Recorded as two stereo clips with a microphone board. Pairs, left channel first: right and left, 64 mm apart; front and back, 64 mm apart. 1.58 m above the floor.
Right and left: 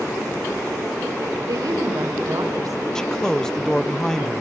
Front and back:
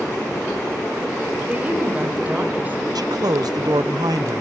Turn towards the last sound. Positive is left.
turn(degrees=-170)